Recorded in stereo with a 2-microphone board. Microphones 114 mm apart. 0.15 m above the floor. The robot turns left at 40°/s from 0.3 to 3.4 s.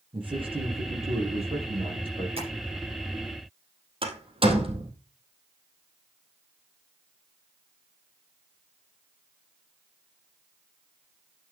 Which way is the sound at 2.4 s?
60° right (ahead or behind).